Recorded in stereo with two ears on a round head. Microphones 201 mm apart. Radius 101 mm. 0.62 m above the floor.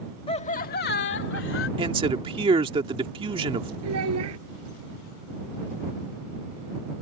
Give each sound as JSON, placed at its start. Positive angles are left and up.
{"t": 0.3, "sound": "laughter", "side_deg": 25}
{"t": 1.8, "sound": "a man speaking", "side_deg": -25}
{"t": 3.8, "sound": "a child speaking", "side_deg": -85}